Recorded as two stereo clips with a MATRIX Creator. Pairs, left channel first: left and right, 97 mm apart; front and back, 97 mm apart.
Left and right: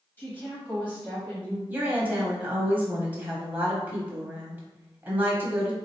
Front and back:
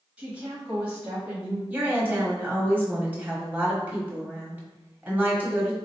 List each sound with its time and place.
0.2 s a woman speaking: 125° left, 1.1 m
1.7 s a woman speaking: 135° right, 1.1 m